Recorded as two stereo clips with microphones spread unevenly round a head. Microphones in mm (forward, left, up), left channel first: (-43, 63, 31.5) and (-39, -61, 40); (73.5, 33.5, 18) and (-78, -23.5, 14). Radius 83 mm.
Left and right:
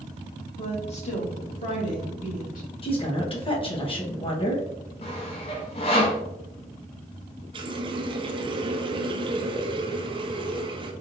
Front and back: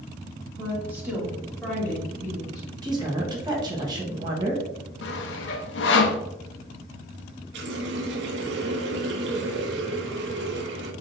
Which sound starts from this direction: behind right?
A running tap, at 7.5 s.